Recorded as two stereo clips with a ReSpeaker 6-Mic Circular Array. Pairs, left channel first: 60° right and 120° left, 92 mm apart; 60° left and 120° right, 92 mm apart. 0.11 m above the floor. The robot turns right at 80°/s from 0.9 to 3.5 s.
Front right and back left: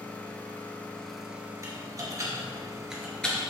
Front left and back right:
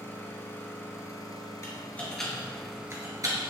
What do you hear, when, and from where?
0.0 s an engine running: 5° left, 1.2 m; by 3.5 s 145° right, 1.2 m
1.6 s typing on a keyboard: 95° left, 1.8 m; by 3.4 s 125° right, 1.8 m